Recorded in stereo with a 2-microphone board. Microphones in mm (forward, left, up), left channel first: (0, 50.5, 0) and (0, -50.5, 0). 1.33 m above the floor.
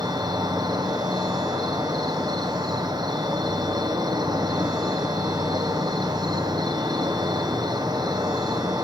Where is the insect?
40° right (ahead or behind), 0.7 m.